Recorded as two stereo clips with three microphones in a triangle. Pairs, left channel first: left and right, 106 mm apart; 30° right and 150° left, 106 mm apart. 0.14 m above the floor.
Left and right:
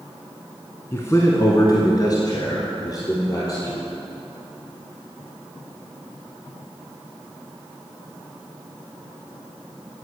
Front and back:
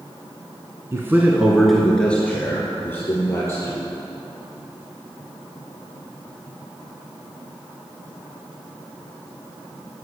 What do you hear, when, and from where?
0.9 s a man speaking: 130° left, 1.2 m; by 3.9 s 35° left, 3.5 m